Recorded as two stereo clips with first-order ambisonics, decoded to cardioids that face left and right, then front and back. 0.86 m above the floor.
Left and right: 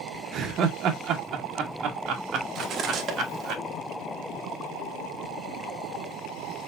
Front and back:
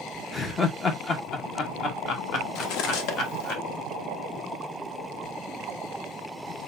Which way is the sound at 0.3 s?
65° right.